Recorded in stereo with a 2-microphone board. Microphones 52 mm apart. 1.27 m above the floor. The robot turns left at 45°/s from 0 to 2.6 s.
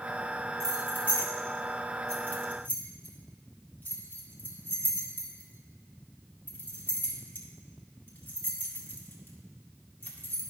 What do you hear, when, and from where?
0.6 s keys jangling: 50° right (ahead or behind), 2 m; by 10.4 s 40° left (ahead or behind), 2 m